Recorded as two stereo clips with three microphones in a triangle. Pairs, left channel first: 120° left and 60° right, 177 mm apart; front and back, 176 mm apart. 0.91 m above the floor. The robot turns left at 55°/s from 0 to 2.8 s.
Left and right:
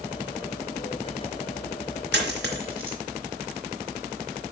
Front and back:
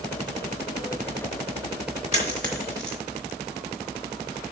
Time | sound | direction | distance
2.1 | a dropped coin | 50° right | 3.5 m